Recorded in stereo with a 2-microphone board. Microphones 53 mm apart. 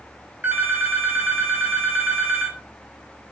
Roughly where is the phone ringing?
Right.